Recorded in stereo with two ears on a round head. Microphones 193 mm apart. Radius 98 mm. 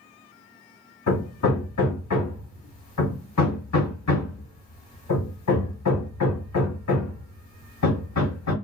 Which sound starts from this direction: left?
Hammering, at 1.1 s.